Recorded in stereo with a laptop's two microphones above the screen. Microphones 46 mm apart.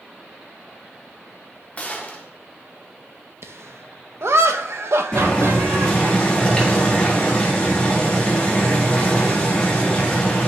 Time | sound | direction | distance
1.8 | a gunshot | 30° left (ahead or behind) | 0.9 m
3.4 | laughter | 65° right (ahead or behind) | 0.6 m
5.1 | boiling | 20° left (ahead or behind) | 1.5 m